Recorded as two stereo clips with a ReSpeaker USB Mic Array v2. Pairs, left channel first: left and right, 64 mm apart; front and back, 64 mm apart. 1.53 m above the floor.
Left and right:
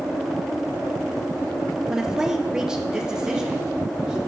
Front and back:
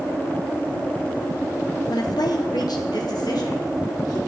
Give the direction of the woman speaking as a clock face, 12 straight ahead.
12 o'clock.